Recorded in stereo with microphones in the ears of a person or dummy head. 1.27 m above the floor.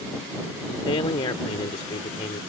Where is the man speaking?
30° left (ahead or behind).